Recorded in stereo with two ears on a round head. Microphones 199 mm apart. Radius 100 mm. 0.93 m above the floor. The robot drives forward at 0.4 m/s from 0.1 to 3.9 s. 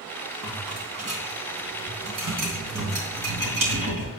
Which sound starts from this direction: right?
A rattle, at 0.4 s.